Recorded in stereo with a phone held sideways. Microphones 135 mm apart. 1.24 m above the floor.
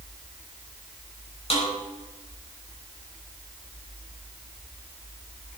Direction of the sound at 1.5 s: 45° left (ahead or behind).